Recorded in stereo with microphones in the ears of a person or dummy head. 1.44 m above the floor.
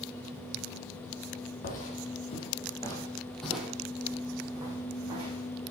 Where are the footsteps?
45° left (ahead or behind), 2.5 m; by 5.5 s 30° right (ahead or behind), 4 m.